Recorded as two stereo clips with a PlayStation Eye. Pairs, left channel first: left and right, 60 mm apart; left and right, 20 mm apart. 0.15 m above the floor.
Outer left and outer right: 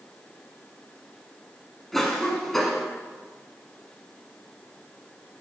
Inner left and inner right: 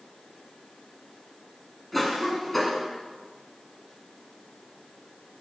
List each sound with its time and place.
1.9 s a cough: 5° left (ahead or behind), 1.2 m